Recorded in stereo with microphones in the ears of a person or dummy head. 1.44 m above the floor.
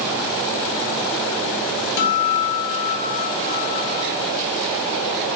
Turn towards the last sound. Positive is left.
turn(degrees=65)  # may be behind; listen again after turning